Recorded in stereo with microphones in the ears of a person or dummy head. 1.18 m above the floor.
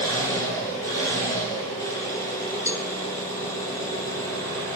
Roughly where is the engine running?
Left.